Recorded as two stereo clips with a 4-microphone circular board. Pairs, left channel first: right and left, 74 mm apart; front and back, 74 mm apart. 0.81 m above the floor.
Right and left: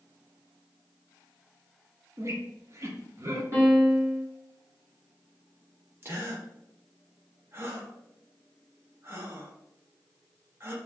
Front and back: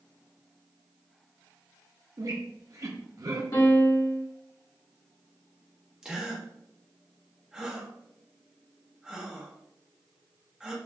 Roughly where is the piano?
Ahead left.